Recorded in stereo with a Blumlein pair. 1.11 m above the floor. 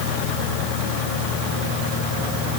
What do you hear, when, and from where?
Only background noise.